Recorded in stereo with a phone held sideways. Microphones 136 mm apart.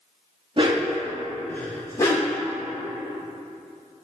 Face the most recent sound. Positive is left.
turn(degrees=25)  # may be behind; listen again after turning